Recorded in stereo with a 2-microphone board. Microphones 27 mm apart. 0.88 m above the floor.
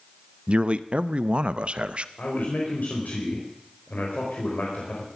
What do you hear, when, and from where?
0.5 s a man speaking: 45° right (ahead or behind), 0.6 m
2.2 s a man speaking: 75° left (ahead or behind), 4.5 m